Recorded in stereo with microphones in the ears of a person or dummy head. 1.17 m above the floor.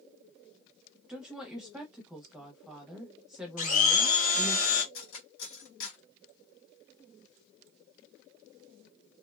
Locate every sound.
1.1 s a woman speaking: centre (ahead or behind), 0.7 m
3.6 s a blender: 45° left (ahead or behind), 1.0 m
4.9 s cutlery clinking: 70° left (ahead or behind), 1.2 m